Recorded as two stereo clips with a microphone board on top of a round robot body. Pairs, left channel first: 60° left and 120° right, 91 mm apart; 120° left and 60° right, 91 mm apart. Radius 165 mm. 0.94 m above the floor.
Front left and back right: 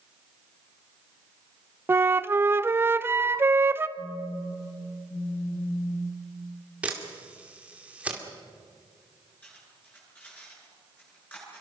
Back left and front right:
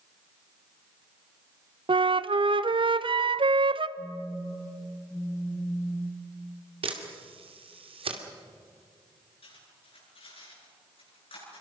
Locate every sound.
1.9 s a flute: 60° right, 0.8 m
4.0 s a phone buzzing: 60° left, 2 m
6.8 s a camera shutter: 45° right, 2.5 m
9.4 s cutlery clinking: 135° left, 9.5 m